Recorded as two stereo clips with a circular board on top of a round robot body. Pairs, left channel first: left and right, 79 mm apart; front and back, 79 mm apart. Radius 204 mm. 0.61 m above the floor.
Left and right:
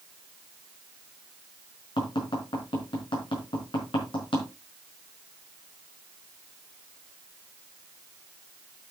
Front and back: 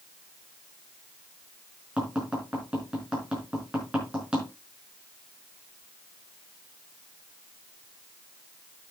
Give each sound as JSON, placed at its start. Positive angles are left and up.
{"t": 2.0, "sound": "tapping", "azimuth_deg": 100, "distance_m": 5.0}